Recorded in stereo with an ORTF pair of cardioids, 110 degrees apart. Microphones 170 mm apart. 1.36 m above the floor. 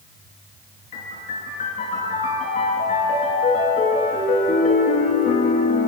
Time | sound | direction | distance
0.9 | a piano | 50° left | 9 m